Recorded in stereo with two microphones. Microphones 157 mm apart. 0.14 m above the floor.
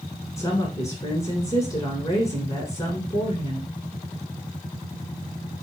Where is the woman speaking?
20° left (ahead or behind), 1.3 m.